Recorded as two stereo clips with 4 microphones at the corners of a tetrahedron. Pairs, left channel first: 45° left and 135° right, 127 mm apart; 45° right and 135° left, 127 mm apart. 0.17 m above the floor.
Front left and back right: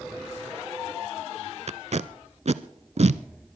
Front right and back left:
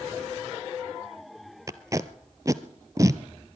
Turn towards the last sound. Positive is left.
turn(degrees=-165)